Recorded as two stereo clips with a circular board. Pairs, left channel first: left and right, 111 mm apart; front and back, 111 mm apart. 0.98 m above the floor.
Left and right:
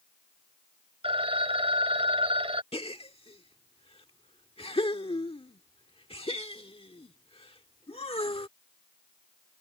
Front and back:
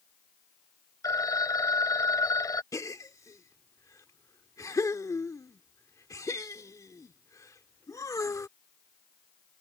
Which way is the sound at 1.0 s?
60° right.